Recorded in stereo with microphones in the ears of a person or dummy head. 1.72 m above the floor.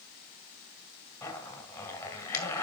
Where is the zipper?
15° left (ahead or behind), 3 m.